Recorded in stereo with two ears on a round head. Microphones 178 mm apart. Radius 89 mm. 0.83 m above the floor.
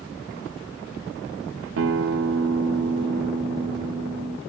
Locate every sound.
1.8 s a guitar: 75° right (ahead or behind), 0.6 m